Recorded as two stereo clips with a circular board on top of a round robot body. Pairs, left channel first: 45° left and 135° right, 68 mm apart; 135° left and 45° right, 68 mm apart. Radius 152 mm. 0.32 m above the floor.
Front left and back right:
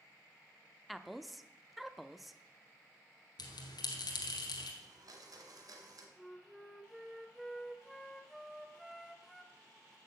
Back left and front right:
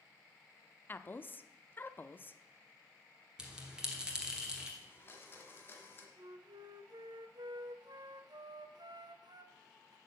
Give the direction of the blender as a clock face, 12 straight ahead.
6 o'clock.